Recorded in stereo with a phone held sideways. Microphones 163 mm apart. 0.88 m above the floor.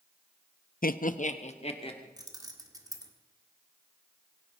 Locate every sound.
0.8 s laughter: 60° left (ahead or behind), 0.6 m; by 2.1 s 35° left (ahead or behind), 2.0 m
2.2 s keys jangling: 20° right (ahead or behind), 1.5 m